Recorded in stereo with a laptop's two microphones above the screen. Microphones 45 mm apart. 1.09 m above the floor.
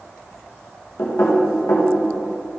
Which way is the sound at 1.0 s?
75° left (ahead or behind).